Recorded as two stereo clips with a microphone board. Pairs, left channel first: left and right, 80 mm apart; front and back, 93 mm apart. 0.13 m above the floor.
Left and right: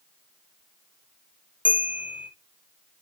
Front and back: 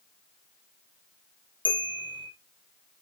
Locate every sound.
1.6 s a bell: 160° right, 3 m